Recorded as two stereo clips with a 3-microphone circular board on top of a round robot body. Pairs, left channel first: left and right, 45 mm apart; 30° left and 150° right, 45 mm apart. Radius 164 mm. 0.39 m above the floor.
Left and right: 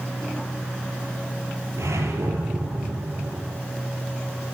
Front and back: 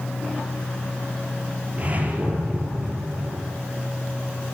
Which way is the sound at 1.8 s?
90° right.